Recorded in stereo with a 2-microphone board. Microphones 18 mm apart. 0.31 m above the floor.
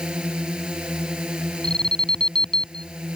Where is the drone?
75° right (ahead or behind).